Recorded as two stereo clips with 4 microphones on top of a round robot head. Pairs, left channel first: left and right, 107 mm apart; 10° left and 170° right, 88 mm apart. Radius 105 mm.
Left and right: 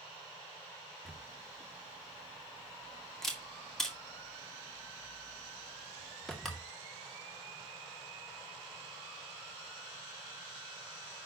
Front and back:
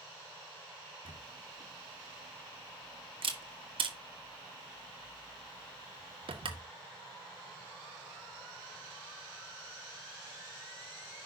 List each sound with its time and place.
1.1 s a camera shutter: 175° left, 1.9 m